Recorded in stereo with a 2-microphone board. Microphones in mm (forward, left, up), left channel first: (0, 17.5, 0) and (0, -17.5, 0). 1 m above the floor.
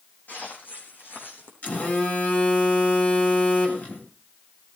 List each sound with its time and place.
0.3 s footsteps: 60° left (ahead or behind), 4 m; by 1.5 s 75° left (ahead or behind), 3.5 m
1.6 s a phone buzzing: 50° left (ahead or behind), 3 m